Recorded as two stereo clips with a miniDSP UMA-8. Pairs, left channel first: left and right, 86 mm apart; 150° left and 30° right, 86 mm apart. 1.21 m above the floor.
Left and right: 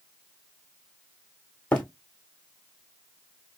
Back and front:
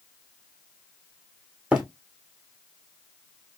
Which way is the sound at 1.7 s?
30° left.